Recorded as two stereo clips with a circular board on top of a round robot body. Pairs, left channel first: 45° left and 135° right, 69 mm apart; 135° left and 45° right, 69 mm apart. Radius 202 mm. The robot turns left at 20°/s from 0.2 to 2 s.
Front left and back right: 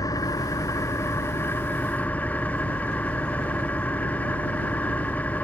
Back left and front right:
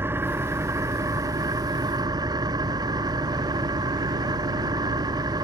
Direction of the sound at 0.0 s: 10° left.